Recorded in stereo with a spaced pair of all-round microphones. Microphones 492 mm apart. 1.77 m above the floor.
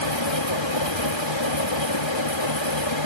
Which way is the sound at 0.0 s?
60° left (ahead or behind).